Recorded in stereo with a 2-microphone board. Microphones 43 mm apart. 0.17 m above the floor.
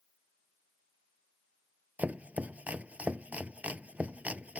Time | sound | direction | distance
2.0 | chopping | 35° right (ahead or behind) | ?